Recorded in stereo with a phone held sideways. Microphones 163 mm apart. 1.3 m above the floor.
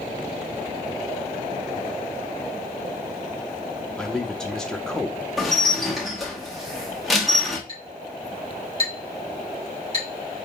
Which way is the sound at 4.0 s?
5° left (ahead or behind).